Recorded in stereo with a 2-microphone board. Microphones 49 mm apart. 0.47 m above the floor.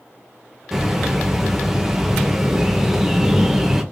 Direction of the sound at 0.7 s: 5° right (ahead or behind).